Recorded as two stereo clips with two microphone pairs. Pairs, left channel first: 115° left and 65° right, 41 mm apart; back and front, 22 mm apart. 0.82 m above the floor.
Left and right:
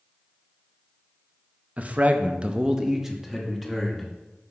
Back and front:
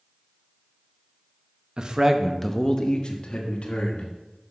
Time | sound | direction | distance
1.8 | a man speaking | 25° right | 0.8 m